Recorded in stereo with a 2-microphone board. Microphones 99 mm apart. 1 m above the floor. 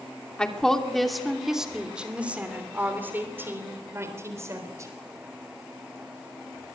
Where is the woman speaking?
10° left (ahead or behind), 2.5 m; by 4.9 s 30° right (ahead or behind), 4 m.